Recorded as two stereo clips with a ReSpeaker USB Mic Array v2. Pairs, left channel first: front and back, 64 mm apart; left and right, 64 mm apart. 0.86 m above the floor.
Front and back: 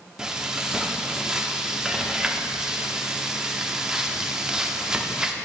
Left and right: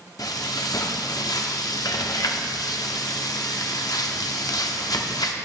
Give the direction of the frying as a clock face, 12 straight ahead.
9 o'clock.